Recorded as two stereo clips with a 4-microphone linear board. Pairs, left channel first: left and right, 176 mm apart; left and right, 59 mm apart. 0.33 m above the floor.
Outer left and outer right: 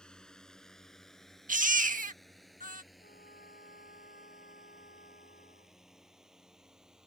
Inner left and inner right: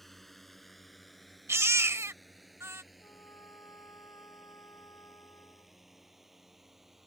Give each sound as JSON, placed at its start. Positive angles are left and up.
{"t": 0.0, "sound": "a drone", "side_deg": 5}
{"t": 1.5, "sound": "a baby crying", "side_deg": -50}
{"t": 3.0, "sound": "a trumpet", "side_deg": 65}